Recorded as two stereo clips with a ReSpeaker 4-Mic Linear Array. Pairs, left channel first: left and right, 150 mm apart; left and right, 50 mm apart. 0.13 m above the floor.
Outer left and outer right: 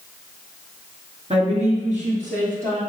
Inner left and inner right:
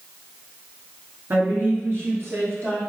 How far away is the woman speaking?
About 1.7 m.